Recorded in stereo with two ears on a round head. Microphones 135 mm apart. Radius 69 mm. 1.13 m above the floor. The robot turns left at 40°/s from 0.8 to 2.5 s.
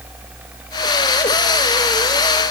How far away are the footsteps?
I don't hear footsteps.